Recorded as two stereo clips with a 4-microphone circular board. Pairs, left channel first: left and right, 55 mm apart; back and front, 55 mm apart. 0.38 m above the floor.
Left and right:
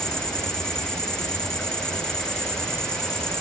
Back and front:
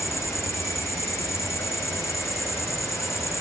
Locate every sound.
0.0 s an insect: 170° left, 4 m